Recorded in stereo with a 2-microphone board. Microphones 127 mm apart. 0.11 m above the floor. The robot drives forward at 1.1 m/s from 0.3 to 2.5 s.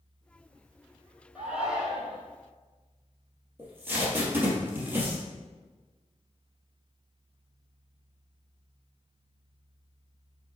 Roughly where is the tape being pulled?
Centre.